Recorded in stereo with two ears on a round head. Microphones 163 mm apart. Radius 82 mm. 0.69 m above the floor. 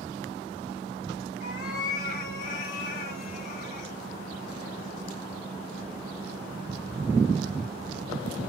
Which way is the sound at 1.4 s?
55° left (ahead or behind).